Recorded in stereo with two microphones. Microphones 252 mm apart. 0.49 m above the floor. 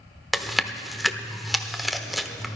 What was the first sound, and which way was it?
Chewing, centre (ahead or behind).